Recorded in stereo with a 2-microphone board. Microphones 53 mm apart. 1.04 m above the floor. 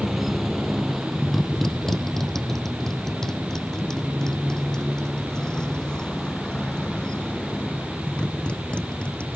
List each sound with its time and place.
0.0 s a motorcycle: 5° right (ahead or behind); by 9.4 s 20° left (ahead or behind)